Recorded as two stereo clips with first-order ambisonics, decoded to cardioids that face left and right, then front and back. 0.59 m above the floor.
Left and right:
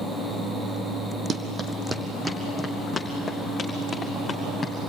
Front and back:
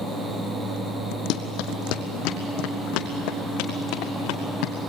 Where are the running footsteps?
25° right, 1.6 m; by 4.7 s 20° left, 3 m.